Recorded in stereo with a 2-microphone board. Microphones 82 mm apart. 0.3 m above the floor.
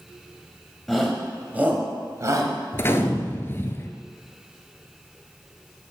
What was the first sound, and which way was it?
A shout, centre (ahead or behind).